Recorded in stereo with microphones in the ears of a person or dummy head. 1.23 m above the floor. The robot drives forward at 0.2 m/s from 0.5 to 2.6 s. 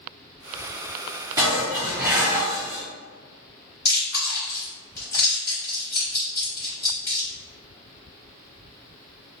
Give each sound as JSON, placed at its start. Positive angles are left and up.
{"t": 1.4, "sound": "dishes clattering", "side_deg": -20, "distance_m": 1.2}
{"t": 3.9, "sound": "chewing", "side_deg": 10, "distance_m": 1.4}